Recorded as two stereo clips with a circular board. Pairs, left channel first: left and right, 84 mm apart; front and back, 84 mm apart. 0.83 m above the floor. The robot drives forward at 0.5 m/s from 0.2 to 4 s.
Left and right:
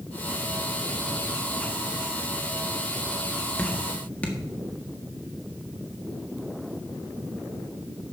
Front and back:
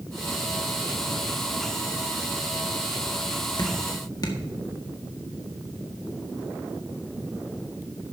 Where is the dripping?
20° left, 1.9 m.